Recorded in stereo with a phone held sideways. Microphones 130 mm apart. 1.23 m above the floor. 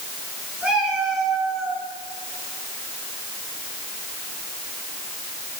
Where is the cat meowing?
10° right (ahead or behind), 4 m; by 1.8 s 5° left (ahead or behind), 4 m.